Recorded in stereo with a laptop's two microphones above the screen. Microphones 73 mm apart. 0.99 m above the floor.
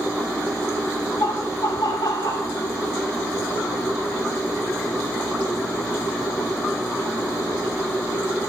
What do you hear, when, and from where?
1.2 s laughter: 75° left (ahead or behind), 3 m; by 2.5 s 60° left (ahead or behind), 2 m